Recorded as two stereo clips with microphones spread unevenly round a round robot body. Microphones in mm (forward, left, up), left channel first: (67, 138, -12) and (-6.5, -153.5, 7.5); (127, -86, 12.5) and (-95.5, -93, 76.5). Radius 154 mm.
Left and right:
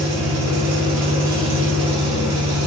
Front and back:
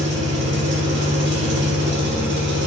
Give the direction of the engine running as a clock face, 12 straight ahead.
4 o'clock.